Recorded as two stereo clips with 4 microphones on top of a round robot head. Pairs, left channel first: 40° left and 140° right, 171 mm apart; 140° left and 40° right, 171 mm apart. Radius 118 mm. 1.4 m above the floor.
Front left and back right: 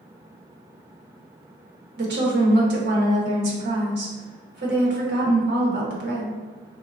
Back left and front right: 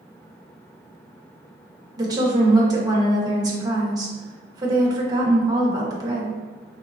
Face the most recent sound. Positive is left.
turn(degrees=-110)